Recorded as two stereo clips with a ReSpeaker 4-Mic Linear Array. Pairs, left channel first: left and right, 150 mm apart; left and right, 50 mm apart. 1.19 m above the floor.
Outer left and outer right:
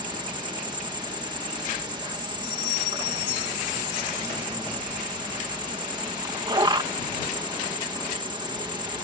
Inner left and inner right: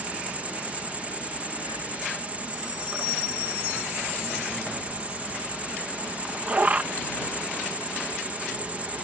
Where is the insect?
30° right (ahead or behind).